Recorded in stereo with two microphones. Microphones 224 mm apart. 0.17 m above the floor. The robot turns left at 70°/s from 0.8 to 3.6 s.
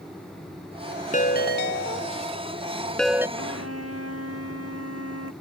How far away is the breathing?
No breathing in this recording.